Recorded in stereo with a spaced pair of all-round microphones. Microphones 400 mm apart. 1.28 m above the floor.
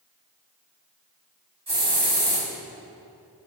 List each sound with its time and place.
1.7 s a hiss: 75° right (ahead or behind), 1.9 m